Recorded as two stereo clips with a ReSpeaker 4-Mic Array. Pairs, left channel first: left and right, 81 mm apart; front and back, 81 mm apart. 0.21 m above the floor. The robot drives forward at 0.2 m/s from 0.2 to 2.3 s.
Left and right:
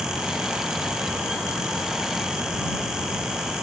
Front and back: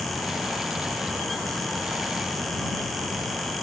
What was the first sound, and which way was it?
Only background noise.